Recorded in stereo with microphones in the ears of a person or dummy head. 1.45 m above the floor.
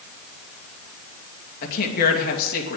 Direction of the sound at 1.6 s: 55° left (ahead or behind).